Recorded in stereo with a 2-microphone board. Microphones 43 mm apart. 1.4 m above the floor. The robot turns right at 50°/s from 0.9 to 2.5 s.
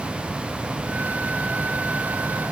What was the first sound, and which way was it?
Only background noise.